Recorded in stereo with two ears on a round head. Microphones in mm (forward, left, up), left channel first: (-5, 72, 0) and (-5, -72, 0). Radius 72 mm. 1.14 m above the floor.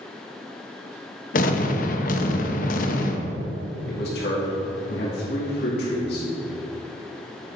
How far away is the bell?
No bell in this recording.